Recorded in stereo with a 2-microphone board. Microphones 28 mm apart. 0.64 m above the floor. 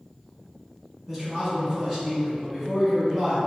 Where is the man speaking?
5° right (ahead or behind), 1.3 m.